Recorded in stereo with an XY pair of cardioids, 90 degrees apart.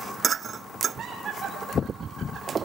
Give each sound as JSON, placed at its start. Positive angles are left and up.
{"t": 1.0, "sound": "laughter", "azimuth_deg": -70, "distance_m": 7.5}